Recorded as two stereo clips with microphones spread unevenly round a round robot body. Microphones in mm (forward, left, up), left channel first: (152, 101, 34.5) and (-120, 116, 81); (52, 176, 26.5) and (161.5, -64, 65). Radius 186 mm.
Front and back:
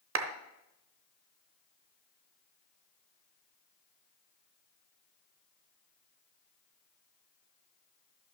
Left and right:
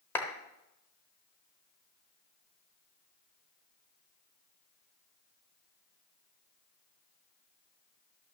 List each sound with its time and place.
0.1 s a clap: straight behind, 0.8 m